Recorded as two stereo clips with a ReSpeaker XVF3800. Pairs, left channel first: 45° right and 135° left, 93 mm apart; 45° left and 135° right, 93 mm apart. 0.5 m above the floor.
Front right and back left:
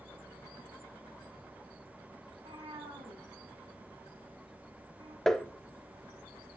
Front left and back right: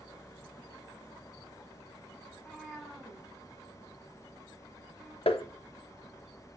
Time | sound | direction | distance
2.3 | a cat meowing | 130° left | 1.4 m
5.3 | tapping | 40° left | 0.6 m